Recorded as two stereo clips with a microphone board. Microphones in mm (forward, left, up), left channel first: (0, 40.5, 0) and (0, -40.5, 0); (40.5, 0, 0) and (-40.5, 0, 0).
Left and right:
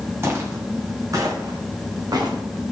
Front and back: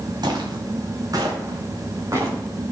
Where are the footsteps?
145° right, 3 m; by 2.7 s 125° right, 4.5 m.